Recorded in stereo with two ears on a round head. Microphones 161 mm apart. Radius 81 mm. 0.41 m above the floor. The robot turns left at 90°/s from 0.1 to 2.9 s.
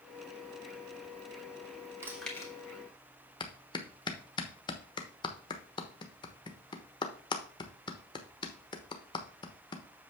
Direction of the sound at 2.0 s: 15° right (ahead or behind).